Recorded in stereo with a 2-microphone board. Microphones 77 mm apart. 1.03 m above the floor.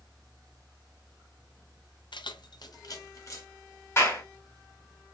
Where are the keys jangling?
75° left (ahead or behind), 0.6 m; by 3.5 s 40° left (ahead or behind), 1.0 m.